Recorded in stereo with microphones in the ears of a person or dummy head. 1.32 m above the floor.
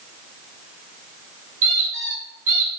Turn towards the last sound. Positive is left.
turn(degrees=-40)  # may be behind; listen again after turning